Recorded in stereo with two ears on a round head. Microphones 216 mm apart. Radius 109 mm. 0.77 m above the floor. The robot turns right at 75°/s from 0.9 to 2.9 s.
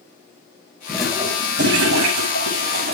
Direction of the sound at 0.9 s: 175° left.